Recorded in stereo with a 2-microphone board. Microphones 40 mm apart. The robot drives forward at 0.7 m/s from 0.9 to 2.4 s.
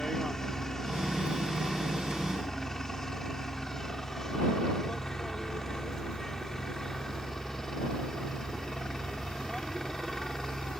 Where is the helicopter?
10° left (ahead or behind).